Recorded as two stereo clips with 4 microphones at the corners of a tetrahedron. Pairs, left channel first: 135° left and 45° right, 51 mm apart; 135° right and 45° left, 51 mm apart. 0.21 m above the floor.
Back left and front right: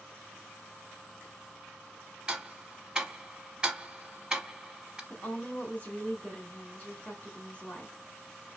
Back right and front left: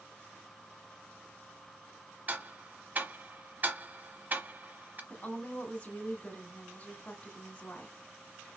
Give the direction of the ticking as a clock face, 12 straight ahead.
11 o'clock.